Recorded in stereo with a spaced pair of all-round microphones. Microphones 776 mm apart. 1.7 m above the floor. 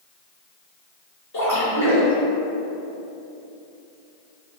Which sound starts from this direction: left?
A splash, at 1.3 s.